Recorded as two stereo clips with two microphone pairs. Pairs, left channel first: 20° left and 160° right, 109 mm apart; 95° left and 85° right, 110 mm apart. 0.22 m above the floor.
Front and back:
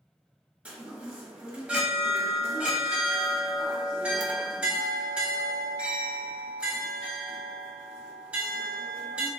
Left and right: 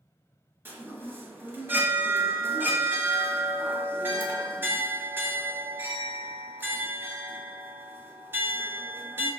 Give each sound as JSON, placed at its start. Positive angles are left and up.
{"t": 0.7, "sound": "a chime", "azimuth_deg": -105, "distance_m": 0.8}